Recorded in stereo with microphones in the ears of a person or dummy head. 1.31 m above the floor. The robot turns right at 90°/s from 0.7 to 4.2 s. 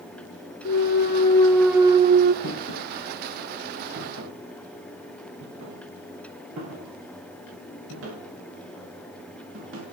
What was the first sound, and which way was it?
A clunk, 100° left.